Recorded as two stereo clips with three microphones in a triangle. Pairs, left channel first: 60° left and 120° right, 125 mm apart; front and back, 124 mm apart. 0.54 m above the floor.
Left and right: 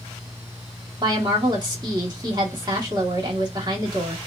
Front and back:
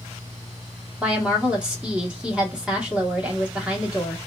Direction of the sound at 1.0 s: 105° right.